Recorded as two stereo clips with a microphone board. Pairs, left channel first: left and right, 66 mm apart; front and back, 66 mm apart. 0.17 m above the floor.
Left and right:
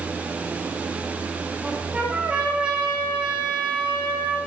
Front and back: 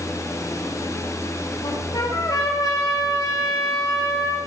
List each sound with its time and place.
1.6 s a trumpet: 20° right, 5 m